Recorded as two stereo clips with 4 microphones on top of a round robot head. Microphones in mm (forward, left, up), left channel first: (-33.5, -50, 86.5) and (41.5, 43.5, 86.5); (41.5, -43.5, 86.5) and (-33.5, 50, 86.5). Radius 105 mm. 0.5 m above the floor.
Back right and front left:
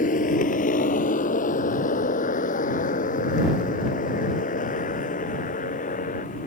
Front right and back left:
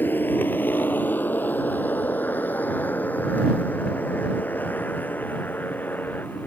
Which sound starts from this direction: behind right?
A motorcycle, at 0.0 s.